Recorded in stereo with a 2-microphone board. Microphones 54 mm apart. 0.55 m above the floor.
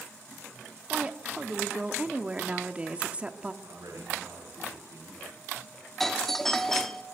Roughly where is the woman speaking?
Right.